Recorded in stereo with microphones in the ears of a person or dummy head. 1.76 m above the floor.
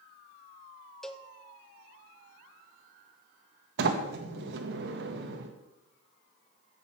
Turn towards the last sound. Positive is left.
turn(degrees=-70)  # may be behind; listen again after turning